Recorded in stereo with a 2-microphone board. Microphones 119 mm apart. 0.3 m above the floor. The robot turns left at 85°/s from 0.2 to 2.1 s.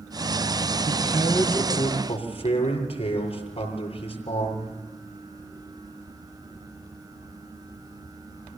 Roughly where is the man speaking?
Behind right.